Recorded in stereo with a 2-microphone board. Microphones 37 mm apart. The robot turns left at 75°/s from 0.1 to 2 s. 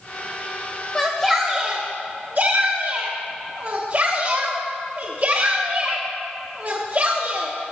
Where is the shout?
10° left (ahead or behind), 1.2 m; by 7.5 s 50° right (ahead or behind), 1.2 m.